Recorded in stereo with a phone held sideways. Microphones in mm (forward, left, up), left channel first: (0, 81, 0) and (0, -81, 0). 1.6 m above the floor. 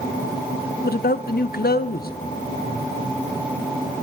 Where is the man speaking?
65° left (ahead or behind), 0.7 m.